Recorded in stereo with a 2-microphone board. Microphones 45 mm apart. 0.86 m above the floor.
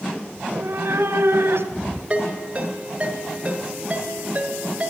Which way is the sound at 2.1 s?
30° right (ahead or behind).